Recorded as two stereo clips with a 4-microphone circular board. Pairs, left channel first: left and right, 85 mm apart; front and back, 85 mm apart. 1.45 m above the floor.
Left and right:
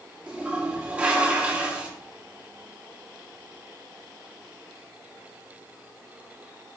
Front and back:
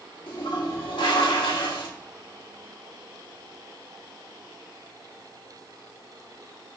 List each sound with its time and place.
0.3 s a toilet flushing: 15° right, 1.7 m